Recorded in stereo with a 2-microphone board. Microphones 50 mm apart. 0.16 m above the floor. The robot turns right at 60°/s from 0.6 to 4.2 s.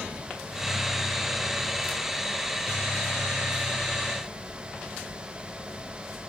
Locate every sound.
Only background noise.